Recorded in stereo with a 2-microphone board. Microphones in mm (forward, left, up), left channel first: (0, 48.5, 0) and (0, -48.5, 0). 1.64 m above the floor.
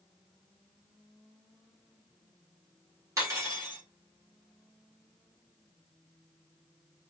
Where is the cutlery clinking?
35° right (ahead or behind), 2.0 m.